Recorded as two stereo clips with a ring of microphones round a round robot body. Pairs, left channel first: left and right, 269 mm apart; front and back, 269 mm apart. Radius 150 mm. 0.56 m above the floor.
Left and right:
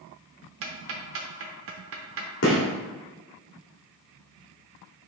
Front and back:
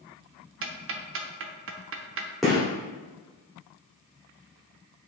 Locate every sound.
0.6 s ticking: 135° right, 0.6 m
2.4 s a gunshot: 90° left, 1.7 m